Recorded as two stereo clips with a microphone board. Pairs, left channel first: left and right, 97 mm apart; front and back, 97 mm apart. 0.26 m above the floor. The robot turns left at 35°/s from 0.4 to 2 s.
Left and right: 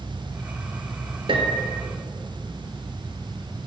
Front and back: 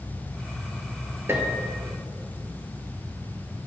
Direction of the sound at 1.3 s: 115° right.